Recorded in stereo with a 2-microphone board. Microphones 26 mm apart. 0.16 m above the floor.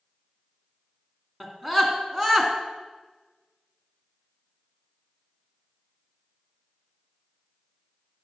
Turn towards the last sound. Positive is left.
turn(degrees=-25)  # may be behind; listen again after turning